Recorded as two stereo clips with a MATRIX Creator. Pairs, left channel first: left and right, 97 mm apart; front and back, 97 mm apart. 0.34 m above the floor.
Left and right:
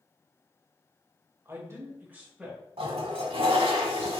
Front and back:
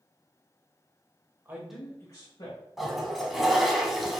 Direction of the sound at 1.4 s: 130° right.